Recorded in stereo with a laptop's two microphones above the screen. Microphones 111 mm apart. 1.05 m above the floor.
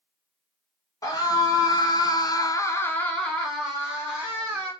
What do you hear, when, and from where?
1.0 s a scream: 30° left (ahead or behind), 1.2 m; by 4.7 s 10° right (ahead or behind), 1.5 m